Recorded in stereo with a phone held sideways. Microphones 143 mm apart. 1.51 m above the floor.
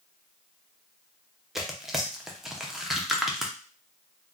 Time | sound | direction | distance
1.6 | tearing paper | centre (ahead or behind) | 0.5 m